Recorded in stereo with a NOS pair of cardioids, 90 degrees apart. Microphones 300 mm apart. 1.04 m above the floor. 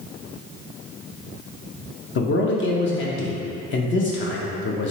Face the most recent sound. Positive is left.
turn(degrees=45)